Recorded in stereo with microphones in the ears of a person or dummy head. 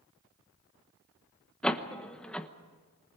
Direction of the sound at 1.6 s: 5° left (ahead or behind).